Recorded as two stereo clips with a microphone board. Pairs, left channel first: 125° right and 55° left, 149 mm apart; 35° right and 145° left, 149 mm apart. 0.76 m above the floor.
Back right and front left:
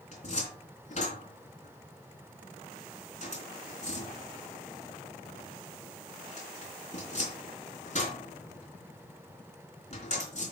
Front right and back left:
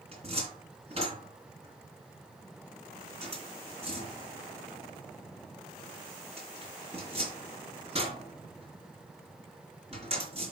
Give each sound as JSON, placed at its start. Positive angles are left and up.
{"t": 0.1, "sound": "a cupboard door", "azimuth_deg": -165, "distance_m": 3.0}